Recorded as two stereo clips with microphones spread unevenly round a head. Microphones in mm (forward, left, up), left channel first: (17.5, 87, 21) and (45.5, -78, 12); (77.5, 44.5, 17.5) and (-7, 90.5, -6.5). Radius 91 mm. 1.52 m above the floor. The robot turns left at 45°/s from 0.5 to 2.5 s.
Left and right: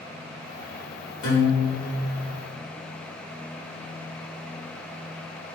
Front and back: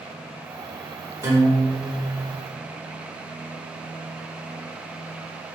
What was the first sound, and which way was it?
A guitar, 90° left.